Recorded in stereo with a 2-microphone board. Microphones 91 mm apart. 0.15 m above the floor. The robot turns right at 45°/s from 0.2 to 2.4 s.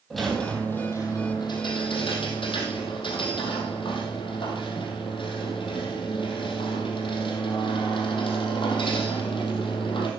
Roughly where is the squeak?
Ahead.